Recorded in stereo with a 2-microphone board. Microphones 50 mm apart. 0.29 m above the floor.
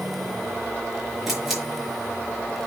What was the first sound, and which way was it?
A camera shutter, 5° right (ahead or behind).